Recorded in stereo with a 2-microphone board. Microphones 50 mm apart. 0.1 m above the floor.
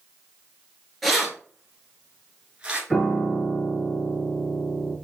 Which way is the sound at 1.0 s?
Centre (ahead or behind).